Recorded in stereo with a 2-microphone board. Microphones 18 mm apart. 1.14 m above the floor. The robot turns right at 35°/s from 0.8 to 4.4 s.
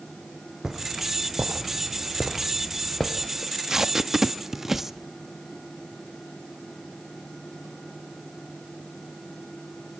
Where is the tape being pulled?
30° right (ahead or behind), 0.6 m; by 4.9 s 20° right (ahead or behind), 0.6 m.